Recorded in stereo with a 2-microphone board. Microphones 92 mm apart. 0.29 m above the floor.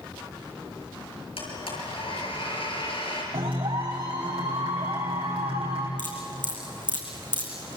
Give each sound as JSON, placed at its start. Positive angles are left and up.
{"t": 1.4, "sound": "a blender", "side_deg": 75, "distance_m": 6.5}
{"t": 3.3, "sound": "a clap", "side_deg": -70, "distance_m": 8.0}
{"t": 6.0, "sound": "dripping", "side_deg": -55, "distance_m": 4.5}